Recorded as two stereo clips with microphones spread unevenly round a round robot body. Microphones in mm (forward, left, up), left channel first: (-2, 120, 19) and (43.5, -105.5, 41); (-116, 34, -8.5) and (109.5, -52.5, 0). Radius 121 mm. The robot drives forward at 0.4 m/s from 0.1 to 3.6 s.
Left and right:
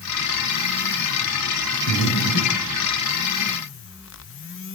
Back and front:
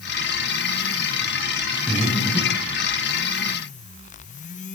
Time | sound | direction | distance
1.9 | breathing | 70° left | 5.5 m